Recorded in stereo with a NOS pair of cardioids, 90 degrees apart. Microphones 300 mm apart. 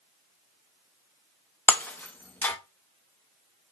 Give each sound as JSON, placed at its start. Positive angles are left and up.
{"t": 1.7, "sound": "breaking glass", "azimuth_deg": 5, "distance_m": 0.6}